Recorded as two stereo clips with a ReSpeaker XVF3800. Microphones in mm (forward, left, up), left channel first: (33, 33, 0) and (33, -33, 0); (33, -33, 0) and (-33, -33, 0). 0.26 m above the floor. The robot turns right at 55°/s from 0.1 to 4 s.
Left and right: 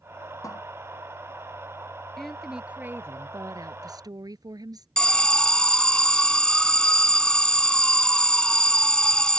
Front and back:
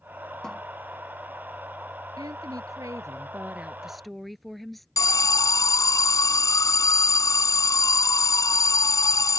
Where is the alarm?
15° left.